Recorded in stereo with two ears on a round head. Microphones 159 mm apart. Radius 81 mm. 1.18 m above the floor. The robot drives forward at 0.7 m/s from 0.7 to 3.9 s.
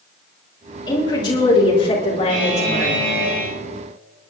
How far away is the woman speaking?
About 3.5 m.